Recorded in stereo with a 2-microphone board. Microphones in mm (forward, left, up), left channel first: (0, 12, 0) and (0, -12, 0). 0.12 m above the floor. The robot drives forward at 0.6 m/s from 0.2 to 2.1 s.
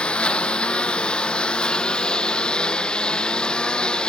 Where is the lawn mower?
50° left (ahead or behind); by 4.1 s 40° left (ahead or behind).